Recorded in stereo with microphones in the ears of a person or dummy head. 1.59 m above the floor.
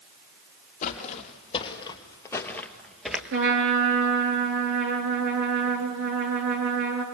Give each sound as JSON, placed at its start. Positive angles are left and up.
{"t": 0.8, "sound": "footsteps", "side_deg": 35, "distance_m": 3.0}
{"t": 3.3, "sound": "a trumpet", "side_deg": -65, "distance_m": 4.5}